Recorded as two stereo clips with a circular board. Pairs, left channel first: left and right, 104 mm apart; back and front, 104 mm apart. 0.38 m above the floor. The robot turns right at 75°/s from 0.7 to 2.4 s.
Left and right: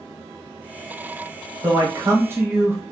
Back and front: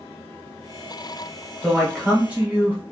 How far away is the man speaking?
About 1.2 m.